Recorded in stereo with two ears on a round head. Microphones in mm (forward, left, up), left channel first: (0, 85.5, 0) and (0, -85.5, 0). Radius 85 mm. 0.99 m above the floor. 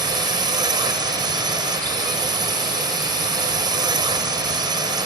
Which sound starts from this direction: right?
A drone, at 0.0 s.